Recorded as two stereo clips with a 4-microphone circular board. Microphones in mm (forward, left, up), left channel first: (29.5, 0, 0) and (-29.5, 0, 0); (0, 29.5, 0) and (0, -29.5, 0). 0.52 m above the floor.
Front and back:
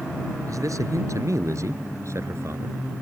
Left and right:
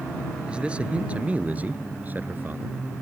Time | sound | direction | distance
0.5 | a man speaking | 160° right | ?